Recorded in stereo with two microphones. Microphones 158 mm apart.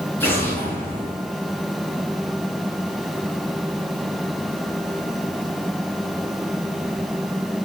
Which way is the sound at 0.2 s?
15° left (ahead or behind).